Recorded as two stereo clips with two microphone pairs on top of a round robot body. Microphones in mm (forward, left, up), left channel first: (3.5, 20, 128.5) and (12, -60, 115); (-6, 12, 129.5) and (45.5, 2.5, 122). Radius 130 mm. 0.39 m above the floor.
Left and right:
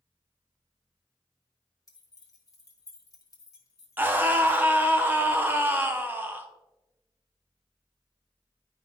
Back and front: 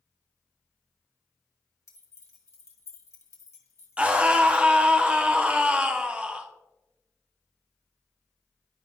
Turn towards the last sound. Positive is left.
turn(degrees=-50)